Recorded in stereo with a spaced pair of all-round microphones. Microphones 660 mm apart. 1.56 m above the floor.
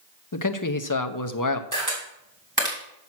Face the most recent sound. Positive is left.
turn(degrees=-30)  # may be behind; listen again after turning